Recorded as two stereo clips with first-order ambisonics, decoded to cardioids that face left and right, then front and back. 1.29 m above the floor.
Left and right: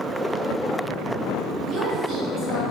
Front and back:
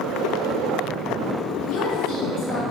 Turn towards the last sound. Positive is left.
turn(degrees=-25)